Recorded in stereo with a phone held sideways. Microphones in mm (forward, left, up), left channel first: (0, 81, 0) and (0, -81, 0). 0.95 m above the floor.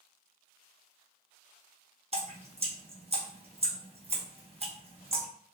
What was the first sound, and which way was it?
Dripping, 40° right (ahead or behind).